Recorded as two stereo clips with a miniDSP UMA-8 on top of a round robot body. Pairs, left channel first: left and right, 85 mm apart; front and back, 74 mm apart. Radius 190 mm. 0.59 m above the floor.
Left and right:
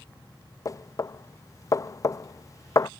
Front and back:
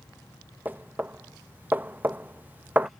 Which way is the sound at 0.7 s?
125° left.